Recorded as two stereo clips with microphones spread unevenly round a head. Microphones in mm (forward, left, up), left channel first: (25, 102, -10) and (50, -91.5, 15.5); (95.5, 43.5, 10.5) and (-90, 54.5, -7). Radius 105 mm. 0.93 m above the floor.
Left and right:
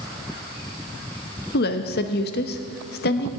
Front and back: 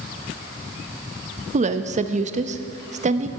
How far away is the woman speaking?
About 0.9 m.